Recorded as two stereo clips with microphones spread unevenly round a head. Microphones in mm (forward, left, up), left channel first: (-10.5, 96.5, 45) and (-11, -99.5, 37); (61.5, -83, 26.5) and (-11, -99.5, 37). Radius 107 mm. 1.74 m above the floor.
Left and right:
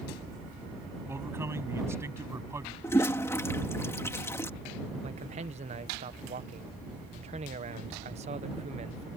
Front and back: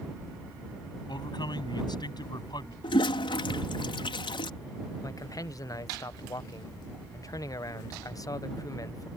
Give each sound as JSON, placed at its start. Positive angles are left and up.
{"t": 1.1, "sound": "a man speaking", "azimuth_deg": -10}
{"t": 2.8, "sound": "a toilet flushing", "azimuth_deg": 10}
{"t": 5.0, "sound": "a man speaking", "azimuth_deg": -30}